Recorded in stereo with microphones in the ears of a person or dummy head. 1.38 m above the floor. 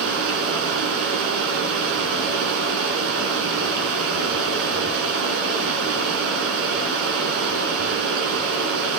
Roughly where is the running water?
Right.